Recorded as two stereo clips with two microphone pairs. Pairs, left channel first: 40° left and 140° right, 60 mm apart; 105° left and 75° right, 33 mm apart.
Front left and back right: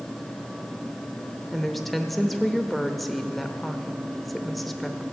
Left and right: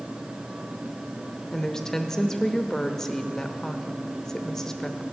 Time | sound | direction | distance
1.5 | a woman speaking | 140° left | 0.8 m